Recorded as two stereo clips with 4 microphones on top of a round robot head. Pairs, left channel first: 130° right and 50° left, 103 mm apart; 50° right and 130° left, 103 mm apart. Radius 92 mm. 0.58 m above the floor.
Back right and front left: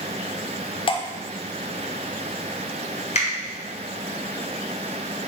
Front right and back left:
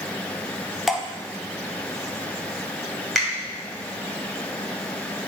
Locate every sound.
0.9 s dripping: 140° right, 0.9 m
3.1 s a finger snap: 140° right, 2.5 m